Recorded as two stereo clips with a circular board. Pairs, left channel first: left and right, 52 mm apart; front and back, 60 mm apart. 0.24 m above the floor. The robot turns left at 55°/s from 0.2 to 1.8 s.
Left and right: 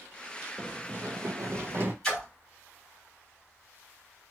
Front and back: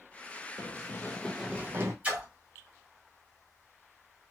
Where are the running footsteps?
Straight ahead, 0.6 m; by 1.9 s 140° right, 0.8 m.